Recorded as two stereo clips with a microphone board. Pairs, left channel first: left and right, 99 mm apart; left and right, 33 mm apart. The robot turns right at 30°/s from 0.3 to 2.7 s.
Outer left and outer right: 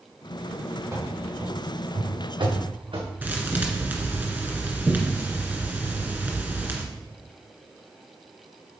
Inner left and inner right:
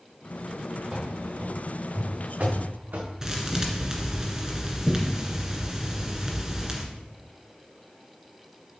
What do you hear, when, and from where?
0.9 s running footsteps: 25° right (ahead or behind), 3 m; by 3.1 s 55° right (ahead or behind), 3 m
3.2 s a thud: 20° right (ahead or behind), 1.9 m